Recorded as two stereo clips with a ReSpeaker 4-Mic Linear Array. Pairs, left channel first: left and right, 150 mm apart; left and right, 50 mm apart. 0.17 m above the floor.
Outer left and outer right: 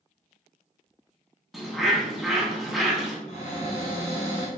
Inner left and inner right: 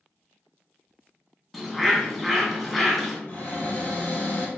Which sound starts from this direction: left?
A cupboard door, at 3.3 s.